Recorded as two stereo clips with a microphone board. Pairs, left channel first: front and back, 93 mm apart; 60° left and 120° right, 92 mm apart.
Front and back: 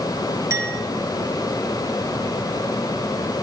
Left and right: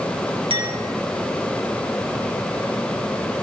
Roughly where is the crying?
I don't hear crying.